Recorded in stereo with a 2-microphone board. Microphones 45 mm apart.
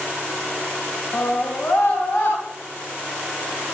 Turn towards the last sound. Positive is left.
turn(degrees=75)  # may be behind; listen again after turning